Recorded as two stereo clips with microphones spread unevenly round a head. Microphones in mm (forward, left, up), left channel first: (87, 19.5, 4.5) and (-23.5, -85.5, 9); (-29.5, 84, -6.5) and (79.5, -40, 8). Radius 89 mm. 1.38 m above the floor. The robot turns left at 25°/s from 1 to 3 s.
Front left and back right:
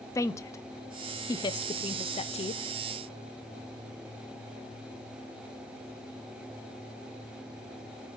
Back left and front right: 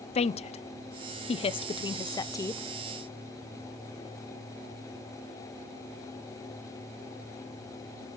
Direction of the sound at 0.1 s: 110° left.